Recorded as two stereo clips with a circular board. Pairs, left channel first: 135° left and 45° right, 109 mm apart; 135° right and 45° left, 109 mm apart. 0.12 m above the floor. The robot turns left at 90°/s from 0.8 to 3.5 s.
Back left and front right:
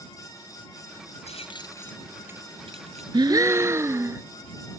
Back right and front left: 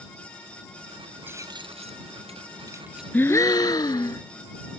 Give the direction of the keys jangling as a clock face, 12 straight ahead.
8 o'clock.